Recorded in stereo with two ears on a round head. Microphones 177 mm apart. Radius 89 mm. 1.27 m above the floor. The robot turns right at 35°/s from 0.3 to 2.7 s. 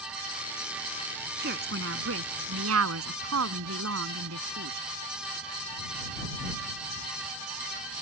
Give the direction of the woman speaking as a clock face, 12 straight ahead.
4 o'clock.